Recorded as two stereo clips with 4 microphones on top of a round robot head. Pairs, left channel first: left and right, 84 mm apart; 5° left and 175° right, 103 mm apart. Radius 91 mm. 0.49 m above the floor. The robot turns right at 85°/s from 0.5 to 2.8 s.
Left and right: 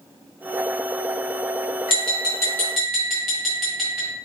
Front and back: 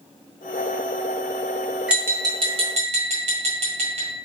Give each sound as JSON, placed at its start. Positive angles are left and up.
{"t": 1.9, "sound": "tapping", "azimuth_deg": 105, "distance_m": 1.6}